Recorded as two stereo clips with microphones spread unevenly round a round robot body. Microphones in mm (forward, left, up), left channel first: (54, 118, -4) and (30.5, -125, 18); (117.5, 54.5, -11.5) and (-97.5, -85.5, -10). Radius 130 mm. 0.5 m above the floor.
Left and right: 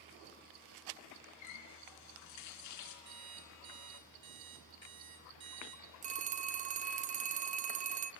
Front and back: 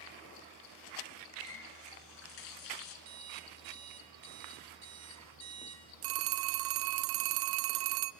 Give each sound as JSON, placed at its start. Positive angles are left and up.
{"t": 1.4, "sound": "a running tap", "azimuth_deg": 75, "distance_m": 4.0}
{"t": 3.0, "sound": "an alarm clock", "azimuth_deg": -125, "distance_m": 4.5}
{"t": 6.0, "sound": "a phone ringing", "azimuth_deg": -155, "distance_m": 0.6}